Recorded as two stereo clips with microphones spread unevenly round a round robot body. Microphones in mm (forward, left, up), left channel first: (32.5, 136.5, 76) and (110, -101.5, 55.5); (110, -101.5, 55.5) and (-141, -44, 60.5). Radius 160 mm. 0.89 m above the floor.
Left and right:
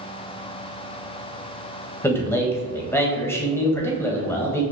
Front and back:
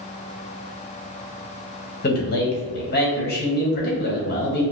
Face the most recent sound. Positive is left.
turn(degrees=25)